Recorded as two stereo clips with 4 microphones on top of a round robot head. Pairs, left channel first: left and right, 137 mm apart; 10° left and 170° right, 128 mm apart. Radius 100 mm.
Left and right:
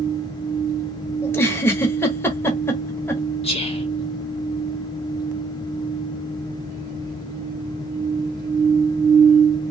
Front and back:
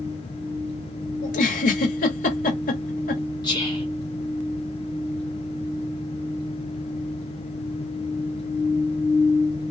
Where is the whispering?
60° left, 1.5 m.